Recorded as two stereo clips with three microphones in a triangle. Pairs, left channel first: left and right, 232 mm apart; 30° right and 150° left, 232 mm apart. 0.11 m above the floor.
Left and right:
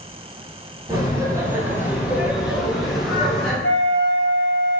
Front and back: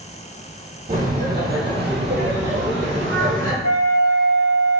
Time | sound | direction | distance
0.9 | laughter | 160° right | 4 m
3.6 | a flute | 120° left | 1.9 m